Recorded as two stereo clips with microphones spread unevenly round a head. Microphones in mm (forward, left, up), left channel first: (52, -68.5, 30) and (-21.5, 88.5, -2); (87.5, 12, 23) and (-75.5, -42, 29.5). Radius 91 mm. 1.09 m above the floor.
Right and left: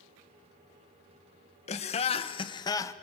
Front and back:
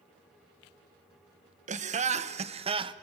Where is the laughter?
120° right, 1.2 m; by 2.9 s 145° right, 0.7 m.